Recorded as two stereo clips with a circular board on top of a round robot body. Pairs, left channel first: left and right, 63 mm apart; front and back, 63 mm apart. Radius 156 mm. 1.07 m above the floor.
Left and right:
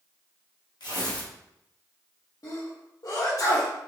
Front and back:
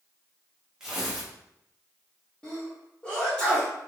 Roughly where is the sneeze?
Left.